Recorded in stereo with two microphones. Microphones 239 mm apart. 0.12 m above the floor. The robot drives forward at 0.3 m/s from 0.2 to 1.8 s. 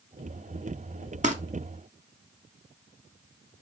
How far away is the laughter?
I don't hear laughter.